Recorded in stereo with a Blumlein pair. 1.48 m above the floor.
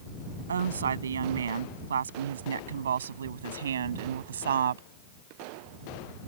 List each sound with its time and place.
0.5 s a woman speaking: 70° right; by 4.8 s 65° right